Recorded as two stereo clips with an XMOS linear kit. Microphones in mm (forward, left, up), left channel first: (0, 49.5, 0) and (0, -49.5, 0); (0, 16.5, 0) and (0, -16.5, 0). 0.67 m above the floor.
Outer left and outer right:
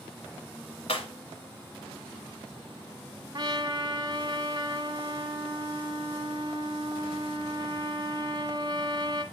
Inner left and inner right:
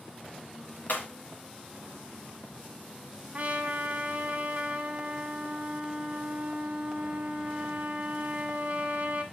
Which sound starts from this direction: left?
Breaking glass, at 0.9 s.